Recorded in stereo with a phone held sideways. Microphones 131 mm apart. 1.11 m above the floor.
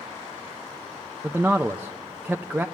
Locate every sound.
1.2 s a man speaking: 10° right (ahead or behind), 0.6 m